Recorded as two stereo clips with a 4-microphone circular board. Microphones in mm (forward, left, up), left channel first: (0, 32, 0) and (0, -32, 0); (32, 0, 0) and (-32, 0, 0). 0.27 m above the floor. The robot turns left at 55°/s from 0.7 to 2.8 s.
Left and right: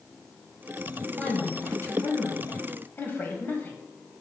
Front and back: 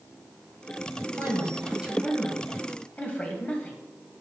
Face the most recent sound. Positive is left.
turn(degrees=55)